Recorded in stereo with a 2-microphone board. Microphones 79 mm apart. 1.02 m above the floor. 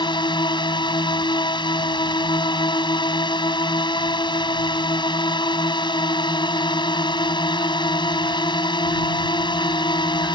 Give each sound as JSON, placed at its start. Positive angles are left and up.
{"t": 0.0, "sound": "a drone", "side_deg": 80}